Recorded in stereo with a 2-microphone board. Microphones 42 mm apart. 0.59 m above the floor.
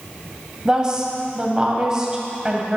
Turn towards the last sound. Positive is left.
turn(degrees=-20)  # may be behind; listen again after turning